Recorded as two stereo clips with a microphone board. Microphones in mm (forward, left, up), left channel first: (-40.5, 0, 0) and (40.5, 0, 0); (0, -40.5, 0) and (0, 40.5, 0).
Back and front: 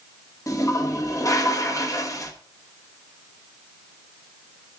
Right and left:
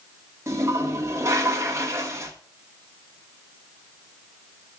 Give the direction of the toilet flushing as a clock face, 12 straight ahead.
7 o'clock.